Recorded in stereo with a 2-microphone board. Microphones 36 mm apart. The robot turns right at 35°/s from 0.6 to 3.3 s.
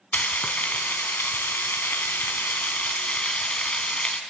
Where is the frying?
55° left, 1.5 m; by 4.2 s 150° left, 1.5 m.